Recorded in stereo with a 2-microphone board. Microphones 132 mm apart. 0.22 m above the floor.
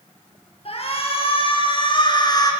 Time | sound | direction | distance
0.7 | a shout | 50° left (ahead or behind) | 5.5 m